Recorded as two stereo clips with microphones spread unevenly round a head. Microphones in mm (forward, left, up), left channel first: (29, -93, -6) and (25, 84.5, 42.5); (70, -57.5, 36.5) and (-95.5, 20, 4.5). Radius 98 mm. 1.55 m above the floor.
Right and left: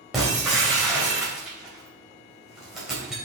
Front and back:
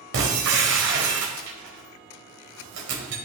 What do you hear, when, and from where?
0.1 s breaking glass: 175° left, 3 m